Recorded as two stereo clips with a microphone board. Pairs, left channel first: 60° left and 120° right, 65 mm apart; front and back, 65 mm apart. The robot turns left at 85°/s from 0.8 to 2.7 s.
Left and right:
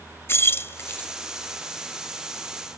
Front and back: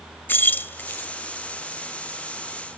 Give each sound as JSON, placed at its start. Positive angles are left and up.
{"t": 0.3, "sound": "keys jangling", "azimuth_deg": 40, "distance_m": 0.7}